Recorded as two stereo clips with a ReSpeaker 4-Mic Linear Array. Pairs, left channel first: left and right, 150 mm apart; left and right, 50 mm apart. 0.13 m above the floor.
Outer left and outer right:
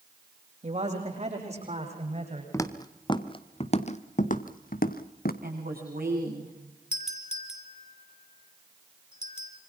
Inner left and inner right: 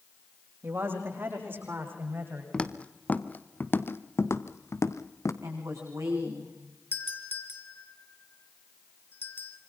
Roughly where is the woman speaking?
Right.